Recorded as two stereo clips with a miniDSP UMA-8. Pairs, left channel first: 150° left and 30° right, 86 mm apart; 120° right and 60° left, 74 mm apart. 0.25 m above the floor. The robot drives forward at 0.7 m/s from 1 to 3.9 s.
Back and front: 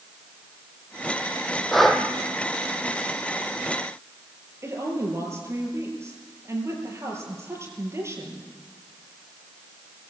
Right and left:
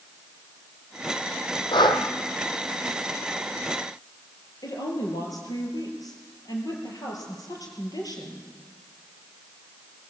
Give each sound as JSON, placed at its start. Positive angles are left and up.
{"t": 1.7, "sound": "breathing", "azimuth_deg": -120, "distance_m": 1.5}
{"t": 4.6, "sound": "a woman speaking", "azimuth_deg": -90, "distance_m": 5.5}